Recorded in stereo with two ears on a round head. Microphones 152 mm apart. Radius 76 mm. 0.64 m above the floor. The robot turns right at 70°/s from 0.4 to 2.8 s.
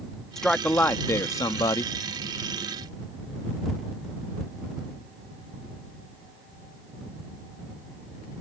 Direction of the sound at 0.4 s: Centre (ahead or behind).